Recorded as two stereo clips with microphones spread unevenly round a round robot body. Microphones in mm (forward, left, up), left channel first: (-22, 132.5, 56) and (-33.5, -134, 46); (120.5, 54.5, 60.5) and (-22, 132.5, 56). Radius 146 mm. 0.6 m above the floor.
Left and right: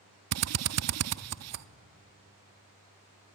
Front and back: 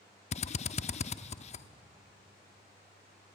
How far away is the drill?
About 0.6 m.